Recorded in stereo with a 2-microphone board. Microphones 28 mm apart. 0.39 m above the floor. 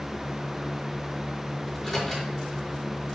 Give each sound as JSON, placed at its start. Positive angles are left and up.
{"t": 1.7, "sound": "a microwave", "side_deg": 5, "distance_m": 5.0}